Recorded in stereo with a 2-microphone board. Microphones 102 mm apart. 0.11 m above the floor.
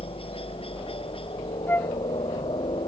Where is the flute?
20° left (ahead or behind).